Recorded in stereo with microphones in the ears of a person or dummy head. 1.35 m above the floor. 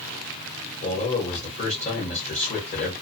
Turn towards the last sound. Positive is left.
turn(degrees=30)  # may be behind; listen again after turning